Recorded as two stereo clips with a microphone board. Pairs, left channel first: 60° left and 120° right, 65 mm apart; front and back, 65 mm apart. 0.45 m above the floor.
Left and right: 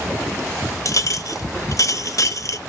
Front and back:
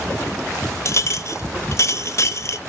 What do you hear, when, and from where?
0.8 s a clink: 35° left, 0.8 m